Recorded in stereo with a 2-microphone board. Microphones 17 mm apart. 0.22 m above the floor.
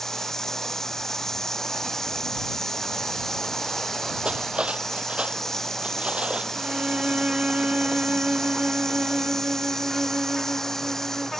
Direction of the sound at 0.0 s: 25° left (ahead or behind).